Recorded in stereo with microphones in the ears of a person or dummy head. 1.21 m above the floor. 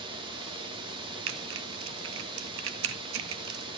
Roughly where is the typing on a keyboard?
Right.